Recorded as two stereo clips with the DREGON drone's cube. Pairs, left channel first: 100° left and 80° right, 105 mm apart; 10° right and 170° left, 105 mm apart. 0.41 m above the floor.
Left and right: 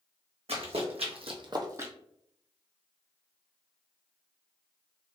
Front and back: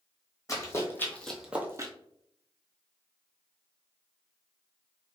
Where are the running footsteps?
65° right, 1.2 m; by 1.9 s 145° right, 0.6 m.